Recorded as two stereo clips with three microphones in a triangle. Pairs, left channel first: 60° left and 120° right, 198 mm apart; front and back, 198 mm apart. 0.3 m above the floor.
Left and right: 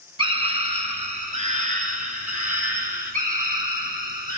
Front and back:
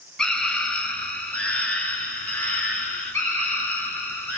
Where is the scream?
85° right, 1.7 m; by 4.4 s 80° right, 4 m.